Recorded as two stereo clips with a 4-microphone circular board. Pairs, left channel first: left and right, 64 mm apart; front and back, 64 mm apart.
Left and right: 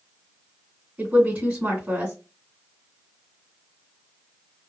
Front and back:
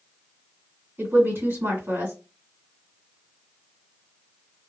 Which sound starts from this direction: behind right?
A woman speaking, at 1.0 s.